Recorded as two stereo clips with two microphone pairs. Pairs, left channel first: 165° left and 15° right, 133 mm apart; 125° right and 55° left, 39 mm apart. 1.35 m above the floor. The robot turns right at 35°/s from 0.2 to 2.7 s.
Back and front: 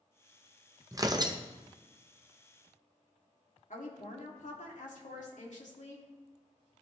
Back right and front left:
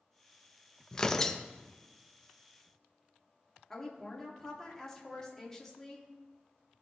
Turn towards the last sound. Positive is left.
turn(degrees=155)